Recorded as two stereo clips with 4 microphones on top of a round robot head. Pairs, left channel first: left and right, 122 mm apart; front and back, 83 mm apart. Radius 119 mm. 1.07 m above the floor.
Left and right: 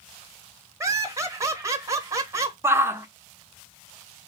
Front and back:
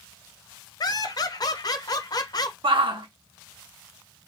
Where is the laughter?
30° right, 1.0 m.